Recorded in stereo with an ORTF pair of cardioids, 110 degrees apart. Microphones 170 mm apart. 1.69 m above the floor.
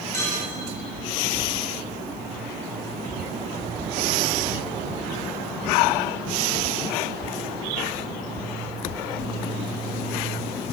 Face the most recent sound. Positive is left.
turn(degrees=15)